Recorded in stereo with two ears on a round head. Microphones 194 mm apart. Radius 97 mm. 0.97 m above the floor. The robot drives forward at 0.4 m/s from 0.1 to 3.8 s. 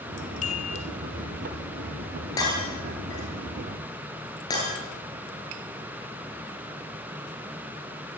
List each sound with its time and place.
0.4 s a chime: 35° left (ahead or behind), 0.9 m; by 0.9 s 30° left (ahead or behind), 1.1 m
2.4 s breaking glass: 15° left (ahead or behind), 8 m; by 4.7 s 20° left (ahead or behind), 7.5 m